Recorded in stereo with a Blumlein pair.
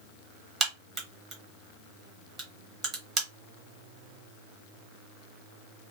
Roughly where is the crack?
Ahead.